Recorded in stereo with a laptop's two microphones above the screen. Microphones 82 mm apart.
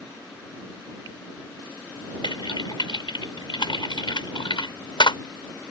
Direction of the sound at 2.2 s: 75° left (ahead or behind).